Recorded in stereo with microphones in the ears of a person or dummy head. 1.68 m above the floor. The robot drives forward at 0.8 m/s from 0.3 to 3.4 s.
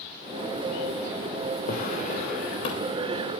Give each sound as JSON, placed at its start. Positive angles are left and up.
{"t": 1.7, "sound": "a drawer", "side_deg": 45, "distance_m": 3.0}